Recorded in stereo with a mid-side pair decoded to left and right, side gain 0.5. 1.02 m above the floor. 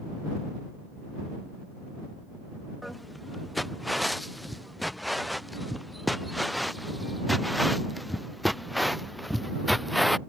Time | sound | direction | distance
2.8 | footsteps | 5° left | ?